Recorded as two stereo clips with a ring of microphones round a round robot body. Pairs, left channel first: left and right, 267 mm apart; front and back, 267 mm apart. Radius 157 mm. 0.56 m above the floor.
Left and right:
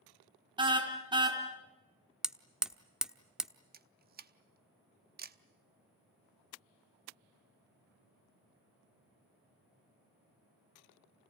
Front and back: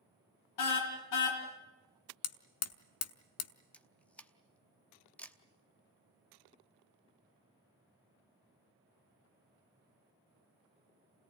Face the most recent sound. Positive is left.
turn(degrees=-80)